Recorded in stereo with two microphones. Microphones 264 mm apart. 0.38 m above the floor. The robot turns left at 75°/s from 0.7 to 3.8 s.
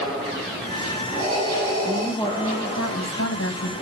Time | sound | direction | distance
1.8 | a woman speaking | 170° right | 2.5 m